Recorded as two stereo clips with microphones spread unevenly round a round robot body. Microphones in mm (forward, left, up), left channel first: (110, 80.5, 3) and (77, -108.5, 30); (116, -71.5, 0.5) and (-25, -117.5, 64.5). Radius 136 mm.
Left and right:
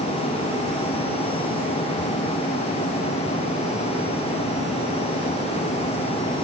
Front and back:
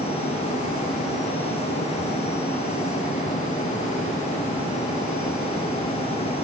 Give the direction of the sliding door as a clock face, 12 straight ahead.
I don't hear a sliding door.